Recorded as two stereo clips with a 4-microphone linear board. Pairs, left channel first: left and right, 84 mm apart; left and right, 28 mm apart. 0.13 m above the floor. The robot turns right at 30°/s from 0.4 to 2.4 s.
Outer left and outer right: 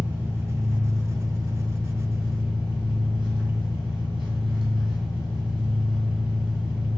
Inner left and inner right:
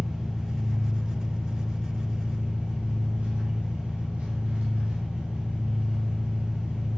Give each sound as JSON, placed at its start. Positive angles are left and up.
{"t": 0.0, "sound": "an engine running", "azimuth_deg": -160, "distance_m": 1.3}